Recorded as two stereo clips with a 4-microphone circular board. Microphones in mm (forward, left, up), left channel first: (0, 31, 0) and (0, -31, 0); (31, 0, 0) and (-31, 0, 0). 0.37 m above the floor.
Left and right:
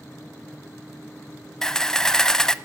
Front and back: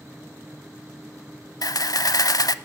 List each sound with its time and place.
1.6 s a camera shutter: 10° left, 0.7 m